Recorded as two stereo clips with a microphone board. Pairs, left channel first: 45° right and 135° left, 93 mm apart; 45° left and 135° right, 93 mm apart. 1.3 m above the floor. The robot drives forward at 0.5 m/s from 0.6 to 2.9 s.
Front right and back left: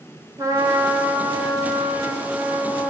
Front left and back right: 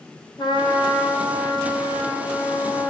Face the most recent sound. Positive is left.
turn(degrees=105)